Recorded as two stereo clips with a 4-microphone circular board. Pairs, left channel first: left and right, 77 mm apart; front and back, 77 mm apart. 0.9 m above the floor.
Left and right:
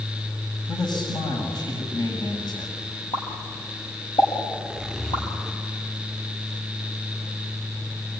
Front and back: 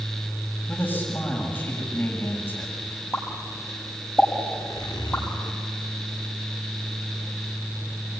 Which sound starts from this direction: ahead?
A zipper, at 4.5 s.